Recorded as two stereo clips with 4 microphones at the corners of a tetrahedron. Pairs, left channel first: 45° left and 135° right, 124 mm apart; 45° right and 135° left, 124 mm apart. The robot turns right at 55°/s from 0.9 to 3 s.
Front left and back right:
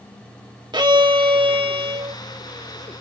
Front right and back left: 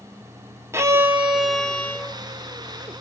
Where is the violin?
170° right, 1.0 m; by 2.2 s 100° right, 1.0 m.